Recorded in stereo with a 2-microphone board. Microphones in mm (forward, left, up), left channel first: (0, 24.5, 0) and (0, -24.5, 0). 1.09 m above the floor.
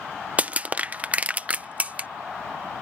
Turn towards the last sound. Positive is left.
turn(degrees=-30)  # may be behind; listen again after turning